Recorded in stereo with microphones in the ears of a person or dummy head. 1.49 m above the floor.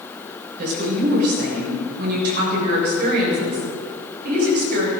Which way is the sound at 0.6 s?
55° right (ahead or behind).